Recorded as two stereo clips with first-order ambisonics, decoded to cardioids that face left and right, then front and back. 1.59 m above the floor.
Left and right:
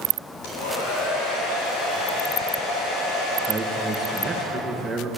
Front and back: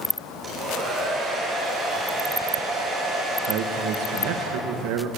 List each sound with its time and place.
0.4 s a hair dryer: 100° left, 9 m
3.4 s a man speaking: 175° right, 2.5 m